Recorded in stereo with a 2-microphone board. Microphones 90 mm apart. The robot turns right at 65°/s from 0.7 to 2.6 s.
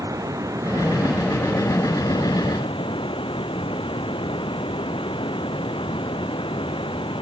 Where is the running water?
40° right; by 7.2 s 85° left.